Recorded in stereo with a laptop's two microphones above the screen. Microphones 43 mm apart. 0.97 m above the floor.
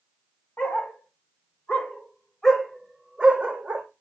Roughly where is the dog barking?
Left.